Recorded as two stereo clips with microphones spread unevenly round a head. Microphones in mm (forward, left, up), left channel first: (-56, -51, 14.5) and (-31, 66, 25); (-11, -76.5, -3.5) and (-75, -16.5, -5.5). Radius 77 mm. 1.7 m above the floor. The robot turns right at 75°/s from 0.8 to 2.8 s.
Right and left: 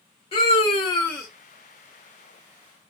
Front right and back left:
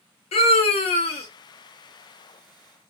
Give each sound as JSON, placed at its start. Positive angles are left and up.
{"t": 0.3, "sound": "a scream", "azimuth_deg": -45, "distance_m": 0.7}